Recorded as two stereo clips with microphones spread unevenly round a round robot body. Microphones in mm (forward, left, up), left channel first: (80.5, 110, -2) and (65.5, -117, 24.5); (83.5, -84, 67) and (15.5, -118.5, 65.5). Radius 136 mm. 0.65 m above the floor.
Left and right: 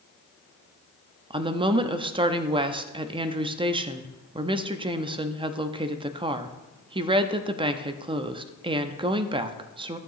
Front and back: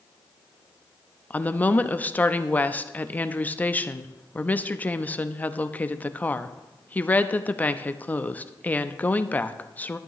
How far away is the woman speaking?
About 0.7 m.